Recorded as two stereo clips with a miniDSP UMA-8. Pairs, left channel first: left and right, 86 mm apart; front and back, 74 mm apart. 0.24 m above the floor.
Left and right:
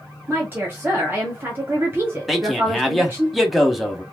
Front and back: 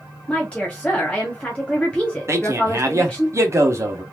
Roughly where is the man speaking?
Behind.